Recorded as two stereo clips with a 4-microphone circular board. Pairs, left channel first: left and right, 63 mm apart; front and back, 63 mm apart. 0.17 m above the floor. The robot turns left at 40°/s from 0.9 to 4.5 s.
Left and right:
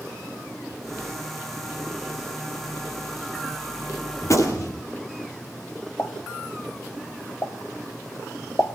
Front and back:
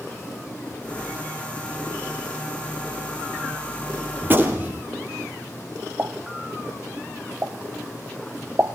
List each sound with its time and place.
4.2 s a gunshot: 130° left, 3.5 m; by 4.8 s 115° left, 3.5 m
6.0 s a pop: 130° left, 1.5 m